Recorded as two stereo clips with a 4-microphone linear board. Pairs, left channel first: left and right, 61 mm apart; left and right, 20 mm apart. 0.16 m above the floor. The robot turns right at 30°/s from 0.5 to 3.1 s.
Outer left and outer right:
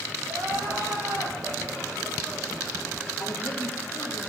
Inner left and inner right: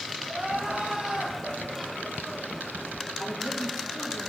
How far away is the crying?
About 6 m.